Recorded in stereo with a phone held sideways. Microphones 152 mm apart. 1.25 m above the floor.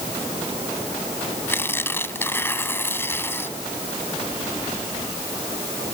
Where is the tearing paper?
15° left (ahead or behind).